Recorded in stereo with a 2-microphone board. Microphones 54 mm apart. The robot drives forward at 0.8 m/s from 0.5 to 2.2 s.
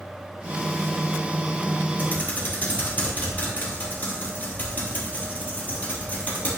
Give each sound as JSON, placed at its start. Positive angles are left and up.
{"t": 2.0, "sound": "typing on a keyboard", "side_deg": 35, "distance_m": 3.5}